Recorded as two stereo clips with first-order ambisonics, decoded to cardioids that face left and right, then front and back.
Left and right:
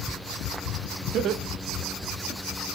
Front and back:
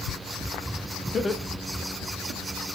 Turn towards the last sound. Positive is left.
turn(degrees=175)